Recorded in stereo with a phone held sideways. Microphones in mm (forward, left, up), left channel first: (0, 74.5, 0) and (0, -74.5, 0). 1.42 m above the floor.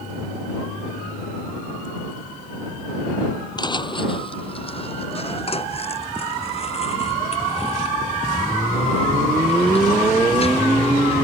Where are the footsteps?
30° left (ahead or behind); by 11.2 s 40° left (ahead or behind).